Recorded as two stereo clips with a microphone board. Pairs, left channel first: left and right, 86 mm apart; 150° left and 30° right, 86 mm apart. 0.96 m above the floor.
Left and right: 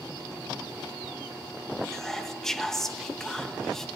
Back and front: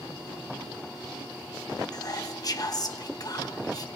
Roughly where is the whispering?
Behind.